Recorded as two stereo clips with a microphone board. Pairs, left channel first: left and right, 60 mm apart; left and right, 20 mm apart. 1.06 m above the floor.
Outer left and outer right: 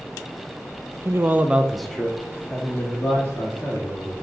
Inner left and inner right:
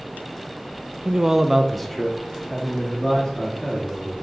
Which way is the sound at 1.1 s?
45° right (ahead or behind).